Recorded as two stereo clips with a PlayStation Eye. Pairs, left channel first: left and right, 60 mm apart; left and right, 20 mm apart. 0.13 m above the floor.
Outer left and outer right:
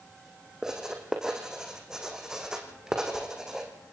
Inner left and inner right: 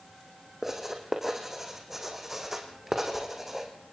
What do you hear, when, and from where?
0.6 s writing: 10° right (ahead or behind), 3.5 m